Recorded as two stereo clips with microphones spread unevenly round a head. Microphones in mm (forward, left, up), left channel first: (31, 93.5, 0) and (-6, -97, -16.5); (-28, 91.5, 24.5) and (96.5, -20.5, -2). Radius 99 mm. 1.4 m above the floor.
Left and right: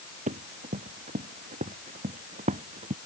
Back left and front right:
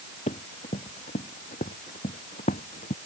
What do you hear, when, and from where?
0.3 s running footsteps: 160° right; by 3.0 s 165° right